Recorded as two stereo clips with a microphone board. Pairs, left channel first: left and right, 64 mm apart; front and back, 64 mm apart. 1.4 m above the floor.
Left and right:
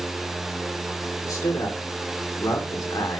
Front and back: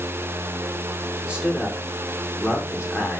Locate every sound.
1.2 s a man speaking: 105° left, 1.9 m